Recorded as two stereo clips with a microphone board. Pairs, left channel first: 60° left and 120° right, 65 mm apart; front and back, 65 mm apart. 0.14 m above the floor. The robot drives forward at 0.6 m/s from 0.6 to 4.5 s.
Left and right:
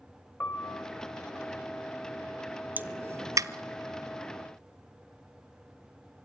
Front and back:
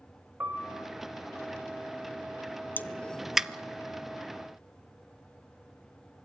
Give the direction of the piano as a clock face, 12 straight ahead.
8 o'clock.